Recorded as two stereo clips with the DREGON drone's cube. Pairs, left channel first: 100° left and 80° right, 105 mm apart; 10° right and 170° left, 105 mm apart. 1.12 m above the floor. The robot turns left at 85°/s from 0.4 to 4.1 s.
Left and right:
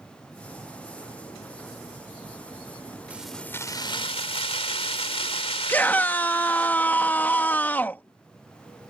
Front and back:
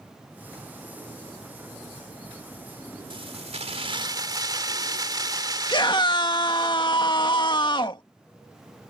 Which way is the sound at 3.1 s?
155° right.